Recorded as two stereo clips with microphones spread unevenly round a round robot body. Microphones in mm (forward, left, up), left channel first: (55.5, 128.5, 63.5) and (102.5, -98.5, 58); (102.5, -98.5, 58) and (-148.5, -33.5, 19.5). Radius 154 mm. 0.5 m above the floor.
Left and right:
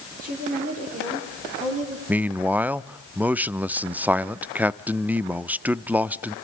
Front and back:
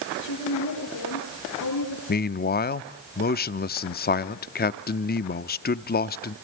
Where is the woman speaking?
25° right, 10 m; by 2.0 s 20° right, 10.5 m.